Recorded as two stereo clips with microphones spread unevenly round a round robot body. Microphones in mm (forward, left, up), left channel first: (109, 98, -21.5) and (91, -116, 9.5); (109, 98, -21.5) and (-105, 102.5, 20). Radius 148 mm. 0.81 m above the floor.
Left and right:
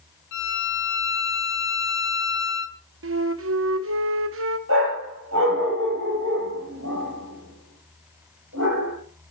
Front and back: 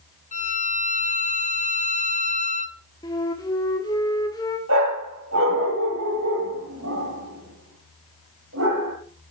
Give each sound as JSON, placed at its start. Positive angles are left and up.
{"t": 0.3, "sound": "a violin", "azimuth_deg": 55, "distance_m": 1.0}
{"t": 3.0, "sound": "a flute", "azimuth_deg": -75, "distance_m": 1.2}
{"t": 4.7, "sound": "a dog barking", "azimuth_deg": -140, "distance_m": 7.0}